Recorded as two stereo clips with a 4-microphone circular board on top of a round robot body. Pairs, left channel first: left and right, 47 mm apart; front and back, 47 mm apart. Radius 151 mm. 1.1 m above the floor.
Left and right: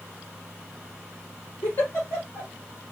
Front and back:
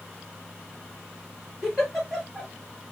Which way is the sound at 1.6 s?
85° left.